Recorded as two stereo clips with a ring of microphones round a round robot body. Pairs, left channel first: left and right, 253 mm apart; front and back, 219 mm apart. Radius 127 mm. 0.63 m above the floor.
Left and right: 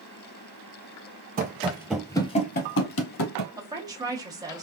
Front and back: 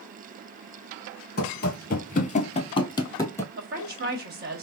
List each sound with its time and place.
1.4 s running footsteps: 40° right, 0.8 m; by 3.5 s 80° left, 1.2 m
3.6 s a woman speaking: 160° right, 1.4 m